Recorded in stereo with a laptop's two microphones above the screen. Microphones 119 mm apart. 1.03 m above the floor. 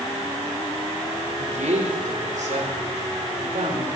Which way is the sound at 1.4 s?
75° right (ahead or behind).